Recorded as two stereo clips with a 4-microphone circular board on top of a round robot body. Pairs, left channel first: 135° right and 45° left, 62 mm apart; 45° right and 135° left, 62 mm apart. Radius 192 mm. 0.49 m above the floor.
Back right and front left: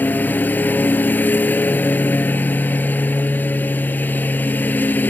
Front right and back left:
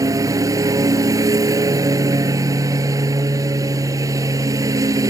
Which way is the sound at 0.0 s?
165° left.